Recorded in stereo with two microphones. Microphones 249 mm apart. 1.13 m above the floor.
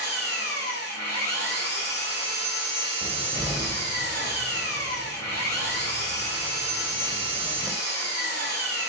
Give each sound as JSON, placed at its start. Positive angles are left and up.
{"t": 0.0, "sound": "an engine running", "side_deg": 40, "distance_m": 1.7}
{"t": 3.0, "sound": "a cupboard door", "side_deg": -10, "distance_m": 0.9}